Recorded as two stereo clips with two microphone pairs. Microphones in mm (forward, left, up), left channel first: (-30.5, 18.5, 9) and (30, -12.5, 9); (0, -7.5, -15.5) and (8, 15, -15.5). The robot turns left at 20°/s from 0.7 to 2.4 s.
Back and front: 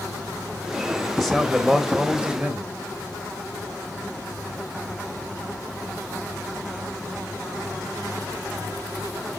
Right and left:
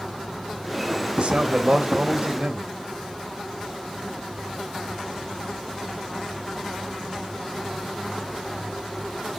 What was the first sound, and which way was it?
A man speaking, 60° left.